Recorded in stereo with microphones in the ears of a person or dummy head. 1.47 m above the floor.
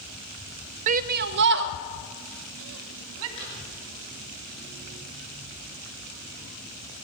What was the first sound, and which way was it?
A shout, 35° right (ahead or behind).